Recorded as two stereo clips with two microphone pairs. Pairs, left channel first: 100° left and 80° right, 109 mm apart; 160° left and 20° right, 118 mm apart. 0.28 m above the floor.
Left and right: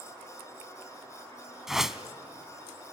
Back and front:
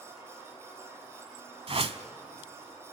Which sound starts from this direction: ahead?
A whoosh, at 1.7 s.